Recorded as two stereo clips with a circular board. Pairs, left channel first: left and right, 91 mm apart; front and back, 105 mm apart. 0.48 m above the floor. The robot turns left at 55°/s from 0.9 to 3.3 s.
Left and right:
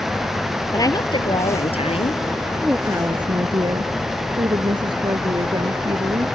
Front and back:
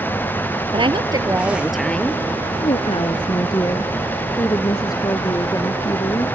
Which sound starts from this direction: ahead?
A woman speaking, at 2.6 s.